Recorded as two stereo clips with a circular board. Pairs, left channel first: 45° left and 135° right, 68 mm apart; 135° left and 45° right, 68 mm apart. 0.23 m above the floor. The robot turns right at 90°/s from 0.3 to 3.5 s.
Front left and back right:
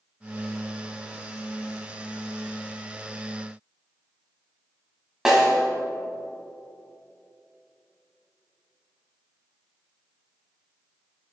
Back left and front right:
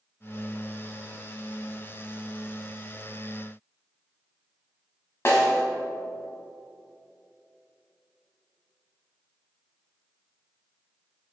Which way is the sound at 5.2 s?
145° left.